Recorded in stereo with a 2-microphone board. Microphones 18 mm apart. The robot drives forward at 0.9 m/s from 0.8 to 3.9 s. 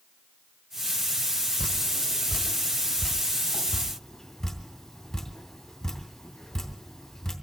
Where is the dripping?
45° left (ahead or behind), 1.4 m; by 7.3 s 20° left (ahead or behind), 3 m.